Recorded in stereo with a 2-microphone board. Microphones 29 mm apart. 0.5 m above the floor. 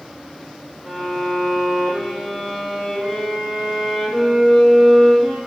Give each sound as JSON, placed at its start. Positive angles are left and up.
{"t": 0.8, "sound": "a violin", "side_deg": 10, "distance_m": 4.5}